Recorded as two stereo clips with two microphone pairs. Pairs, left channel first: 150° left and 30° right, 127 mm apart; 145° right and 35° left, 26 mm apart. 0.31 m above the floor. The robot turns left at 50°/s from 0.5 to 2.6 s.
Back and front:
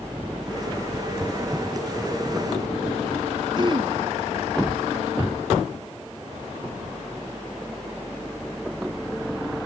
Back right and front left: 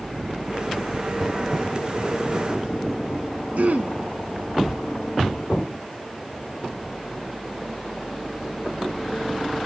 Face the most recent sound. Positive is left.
turn(degrees=25)